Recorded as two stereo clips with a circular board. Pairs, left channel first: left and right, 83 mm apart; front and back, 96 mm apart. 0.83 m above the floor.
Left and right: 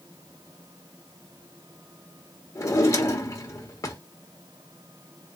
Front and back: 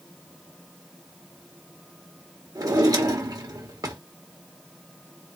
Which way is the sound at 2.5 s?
135° left.